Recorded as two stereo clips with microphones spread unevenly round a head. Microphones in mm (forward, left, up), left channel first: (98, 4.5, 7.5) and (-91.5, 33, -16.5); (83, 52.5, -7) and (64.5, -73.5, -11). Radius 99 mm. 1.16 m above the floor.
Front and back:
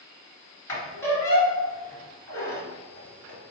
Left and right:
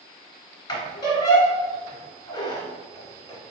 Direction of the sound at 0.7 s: 55° left.